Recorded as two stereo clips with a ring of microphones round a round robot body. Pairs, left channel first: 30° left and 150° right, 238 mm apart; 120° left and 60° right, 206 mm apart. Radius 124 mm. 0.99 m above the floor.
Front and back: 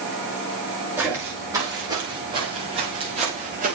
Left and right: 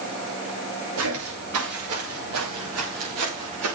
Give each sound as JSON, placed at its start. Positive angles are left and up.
{"t": 1.0, "sound": "footsteps", "azimuth_deg": -70, "distance_m": 6.5}